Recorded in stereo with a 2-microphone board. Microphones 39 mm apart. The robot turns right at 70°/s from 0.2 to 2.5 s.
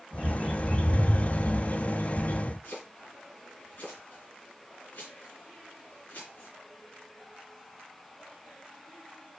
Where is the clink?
No clink in this recording.